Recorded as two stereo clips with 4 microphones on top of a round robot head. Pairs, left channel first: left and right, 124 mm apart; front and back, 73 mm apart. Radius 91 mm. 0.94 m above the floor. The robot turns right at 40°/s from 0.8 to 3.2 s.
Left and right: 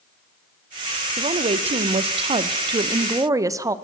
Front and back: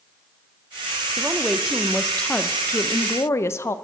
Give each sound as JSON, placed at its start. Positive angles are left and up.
{"t": 1.2, "sound": "a woman speaking", "azimuth_deg": -115, "distance_m": 0.5}